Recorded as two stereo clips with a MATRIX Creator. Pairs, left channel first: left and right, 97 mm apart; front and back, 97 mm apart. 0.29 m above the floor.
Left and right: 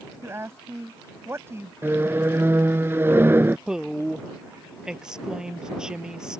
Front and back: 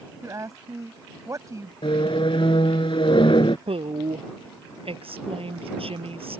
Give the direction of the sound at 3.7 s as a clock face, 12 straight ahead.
6 o'clock.